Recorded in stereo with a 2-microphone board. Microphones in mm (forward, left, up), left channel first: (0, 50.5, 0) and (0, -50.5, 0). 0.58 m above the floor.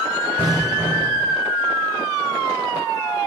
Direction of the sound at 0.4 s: 30° right (ahead or behind).